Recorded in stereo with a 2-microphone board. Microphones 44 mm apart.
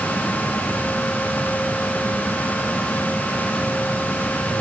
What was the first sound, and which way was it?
Only background noise.